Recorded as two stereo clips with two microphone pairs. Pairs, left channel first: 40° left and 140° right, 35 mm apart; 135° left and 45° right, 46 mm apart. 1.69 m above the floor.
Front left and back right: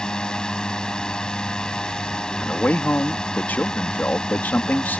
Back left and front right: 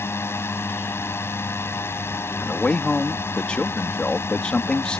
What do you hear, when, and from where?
0.0 s a drone: 105° left
2.4 s a man speaking: 65° left